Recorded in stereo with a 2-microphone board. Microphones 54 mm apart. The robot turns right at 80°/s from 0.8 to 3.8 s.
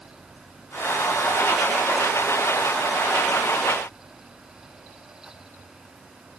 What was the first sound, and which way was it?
Only background noise.